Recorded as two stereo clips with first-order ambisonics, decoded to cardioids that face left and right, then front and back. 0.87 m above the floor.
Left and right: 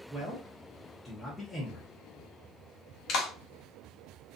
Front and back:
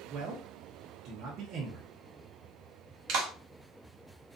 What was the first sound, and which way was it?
A man speaking, straight behind.